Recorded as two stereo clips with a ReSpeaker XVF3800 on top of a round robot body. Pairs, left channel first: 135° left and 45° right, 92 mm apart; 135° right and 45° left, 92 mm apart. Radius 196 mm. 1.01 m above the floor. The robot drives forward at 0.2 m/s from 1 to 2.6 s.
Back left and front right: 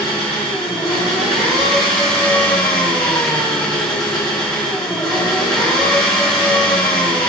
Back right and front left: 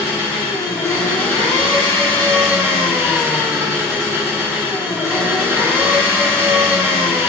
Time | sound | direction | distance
0.0 | an engine running | 130° right | 1.0 m